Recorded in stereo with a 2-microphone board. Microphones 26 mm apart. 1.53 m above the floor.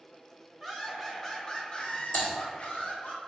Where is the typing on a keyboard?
80° left, 1.0 m.